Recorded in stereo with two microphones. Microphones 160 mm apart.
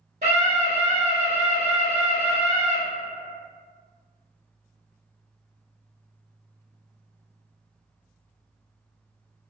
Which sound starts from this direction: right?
A scream, at 0.2 s.